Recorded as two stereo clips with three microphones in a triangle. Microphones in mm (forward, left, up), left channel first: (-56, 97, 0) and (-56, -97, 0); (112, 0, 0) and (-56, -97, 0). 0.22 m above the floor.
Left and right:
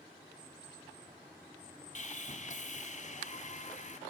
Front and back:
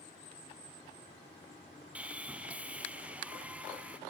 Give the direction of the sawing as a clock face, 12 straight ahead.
8 o'clock.